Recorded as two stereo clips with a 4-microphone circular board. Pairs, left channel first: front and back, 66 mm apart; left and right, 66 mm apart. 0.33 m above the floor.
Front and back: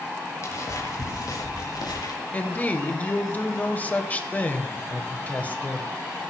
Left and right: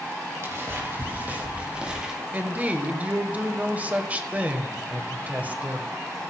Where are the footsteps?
40° right, 4 m; by 2.1 s 10° right, 3.5 m.